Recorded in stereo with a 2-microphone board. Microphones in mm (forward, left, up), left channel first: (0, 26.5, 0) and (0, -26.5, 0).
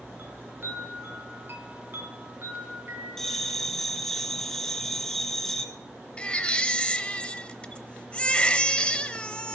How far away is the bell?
About 1.2 m.